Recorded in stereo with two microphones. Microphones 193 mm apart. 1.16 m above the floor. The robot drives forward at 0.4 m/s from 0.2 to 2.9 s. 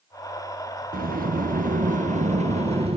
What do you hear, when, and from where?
0.9 s a sliding door: 45° right (ahead or behind), 0.7 m; by 3.0 s 30° right (ahead or behind), 1.0 m